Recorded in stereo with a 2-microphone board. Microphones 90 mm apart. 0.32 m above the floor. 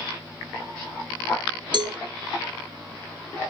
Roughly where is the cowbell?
Right.